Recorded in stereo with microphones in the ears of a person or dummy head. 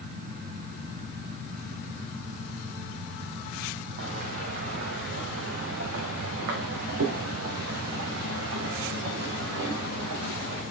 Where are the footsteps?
60° right (ahead or behind), 3 m; by 10.6 s 75° right (ahead or behind), 6.5 m.